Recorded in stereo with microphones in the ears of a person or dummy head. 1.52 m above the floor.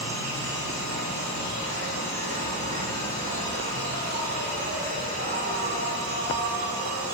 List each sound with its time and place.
0.0 s an insect: 40° right (ahead or behind), 6.5 m